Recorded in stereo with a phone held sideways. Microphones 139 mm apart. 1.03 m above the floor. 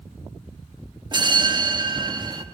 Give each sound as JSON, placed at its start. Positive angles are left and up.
{"t": 1.1, "sound": "a bell", "side_deg": -35, "distance_m": 1.0}